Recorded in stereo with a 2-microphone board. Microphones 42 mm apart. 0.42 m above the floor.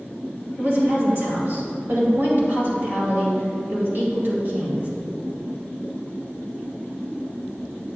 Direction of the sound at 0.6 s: 55° right (ahead or behind).